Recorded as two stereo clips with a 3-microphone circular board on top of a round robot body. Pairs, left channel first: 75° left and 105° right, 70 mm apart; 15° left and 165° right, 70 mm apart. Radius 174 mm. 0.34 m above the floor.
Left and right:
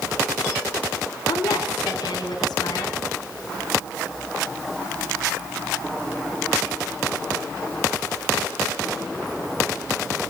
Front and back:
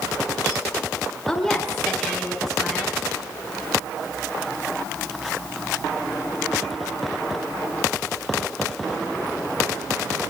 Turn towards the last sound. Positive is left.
turn(degrees=100)